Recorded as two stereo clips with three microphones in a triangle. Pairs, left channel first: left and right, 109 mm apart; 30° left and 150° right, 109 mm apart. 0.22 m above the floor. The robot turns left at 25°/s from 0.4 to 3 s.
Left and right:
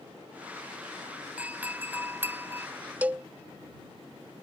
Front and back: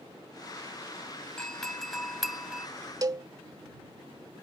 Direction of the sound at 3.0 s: 155° right.